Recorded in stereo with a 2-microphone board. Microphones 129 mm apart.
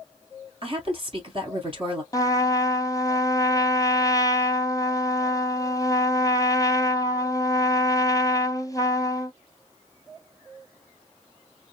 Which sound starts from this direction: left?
A trumpet, at 2.1 s.